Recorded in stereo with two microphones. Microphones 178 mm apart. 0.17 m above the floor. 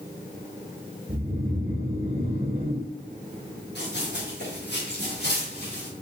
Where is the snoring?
40° right (ahead or behind), 1.8 m.